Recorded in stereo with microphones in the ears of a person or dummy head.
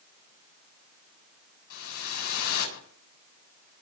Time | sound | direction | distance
1.7 | a whoosh | 80° left | 8 m